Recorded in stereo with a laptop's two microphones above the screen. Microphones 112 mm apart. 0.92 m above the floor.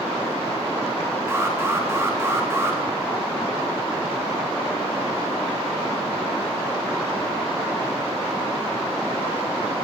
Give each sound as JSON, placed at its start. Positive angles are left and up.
{"t": 1.3, "sound": "an alarm", "side_deg": -25, "distance_m": 2.5}